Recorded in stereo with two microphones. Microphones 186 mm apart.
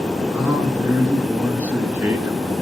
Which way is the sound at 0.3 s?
10° right (ahead or behind).